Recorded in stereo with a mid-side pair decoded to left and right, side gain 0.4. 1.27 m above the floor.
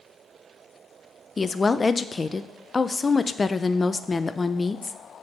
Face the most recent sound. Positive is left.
turn(degrees=30)